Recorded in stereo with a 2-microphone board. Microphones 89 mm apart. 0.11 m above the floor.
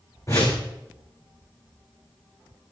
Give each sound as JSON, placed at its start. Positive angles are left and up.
{"t": 0.3, "sound": "a whoosh", "side_deg": 35, "distance_m": 4.0}